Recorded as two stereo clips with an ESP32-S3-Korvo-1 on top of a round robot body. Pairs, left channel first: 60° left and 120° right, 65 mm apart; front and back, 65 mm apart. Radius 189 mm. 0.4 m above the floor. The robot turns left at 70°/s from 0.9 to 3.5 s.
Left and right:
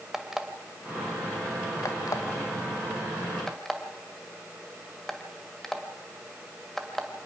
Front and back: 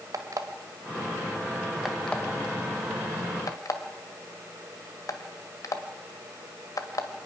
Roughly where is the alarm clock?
Behind left.